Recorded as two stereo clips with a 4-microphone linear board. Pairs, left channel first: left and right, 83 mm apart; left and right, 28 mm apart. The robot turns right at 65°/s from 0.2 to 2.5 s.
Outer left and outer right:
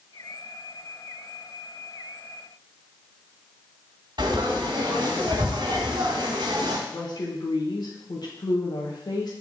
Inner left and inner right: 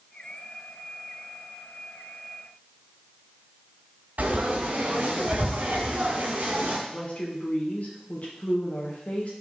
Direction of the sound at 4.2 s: 70° right (ahead or behind).